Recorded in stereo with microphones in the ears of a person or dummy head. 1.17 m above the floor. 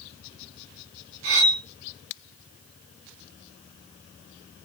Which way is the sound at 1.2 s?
55° right (ahead or behind).